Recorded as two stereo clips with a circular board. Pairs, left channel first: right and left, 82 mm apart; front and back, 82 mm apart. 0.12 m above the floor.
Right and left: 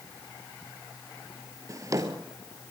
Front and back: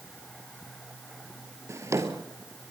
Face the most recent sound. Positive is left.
turn(degrees=130)